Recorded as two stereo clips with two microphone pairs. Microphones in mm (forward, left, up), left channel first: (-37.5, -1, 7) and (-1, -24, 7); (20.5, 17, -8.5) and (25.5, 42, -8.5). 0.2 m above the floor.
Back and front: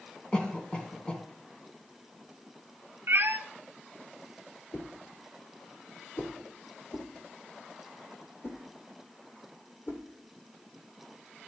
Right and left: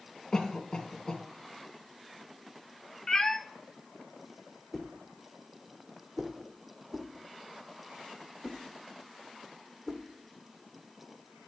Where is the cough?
155° right, 1.9 m.